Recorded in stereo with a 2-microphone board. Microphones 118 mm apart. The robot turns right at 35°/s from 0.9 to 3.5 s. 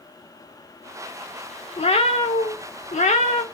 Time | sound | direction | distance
1.8 | a cat meowing | 60° left | 0.7 m